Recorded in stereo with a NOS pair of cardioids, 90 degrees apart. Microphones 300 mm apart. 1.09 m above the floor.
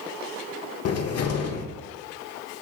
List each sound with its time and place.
0.8 s a cupboard door: 50° left, 0.7 m